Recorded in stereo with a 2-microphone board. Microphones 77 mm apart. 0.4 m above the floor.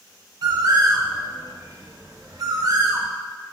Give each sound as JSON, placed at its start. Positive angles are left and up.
{"t": 0.4, "sound": "a bird", "side_deg": -55, "distance_m": 0.6}